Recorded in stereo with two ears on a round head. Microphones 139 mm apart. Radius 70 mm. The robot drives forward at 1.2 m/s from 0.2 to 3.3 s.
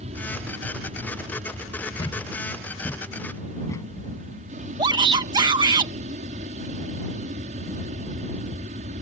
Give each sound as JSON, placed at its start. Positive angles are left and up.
{"t": 0.0, "sound": "an aircraft", "side_deg": -45}
{"t": 2.0, "sound": "a thud", "side_deg": 35}
{"t": 4.8, "sound": "a shout", "side_deg": -25}